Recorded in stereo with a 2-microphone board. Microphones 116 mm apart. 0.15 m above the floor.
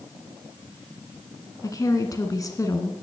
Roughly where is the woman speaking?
Left.